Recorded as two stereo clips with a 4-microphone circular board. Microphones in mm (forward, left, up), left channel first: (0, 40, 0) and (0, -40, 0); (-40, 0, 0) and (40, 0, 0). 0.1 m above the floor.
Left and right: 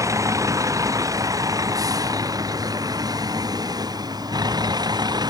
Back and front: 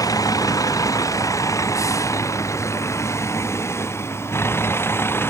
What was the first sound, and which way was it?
A vehicle, 140° right.